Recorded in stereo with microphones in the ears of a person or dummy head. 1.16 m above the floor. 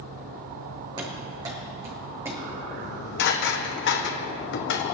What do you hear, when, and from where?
1.0 s running footsteps: 25° right (ahead or behind), 4 m; by 2.6 s 10° right (ahead or behind), 4.5 m
2.8 s dishes clattering: 65° left (ahead or behind), 1.1 m